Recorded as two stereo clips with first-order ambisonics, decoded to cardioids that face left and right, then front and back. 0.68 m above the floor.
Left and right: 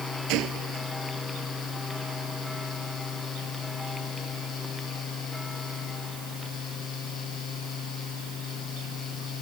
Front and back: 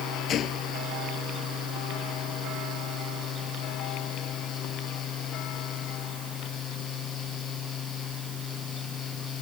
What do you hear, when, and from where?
0.3 s a gunshot: 55° right